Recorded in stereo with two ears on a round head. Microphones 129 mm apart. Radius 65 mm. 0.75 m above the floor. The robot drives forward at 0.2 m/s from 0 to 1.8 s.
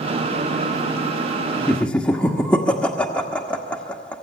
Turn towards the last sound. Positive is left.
turn(degrees=10)  # may be behind; listen again after turning